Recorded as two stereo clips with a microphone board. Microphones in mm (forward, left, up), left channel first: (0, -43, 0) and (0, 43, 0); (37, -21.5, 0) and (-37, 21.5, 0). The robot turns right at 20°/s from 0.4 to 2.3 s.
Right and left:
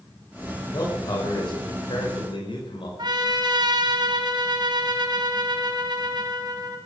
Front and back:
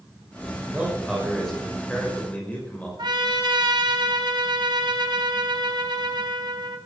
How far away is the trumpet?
About 2.5 m.